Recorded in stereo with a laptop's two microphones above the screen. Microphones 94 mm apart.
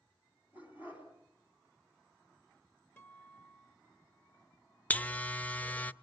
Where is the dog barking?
20° right (ahead or behind), 4 m.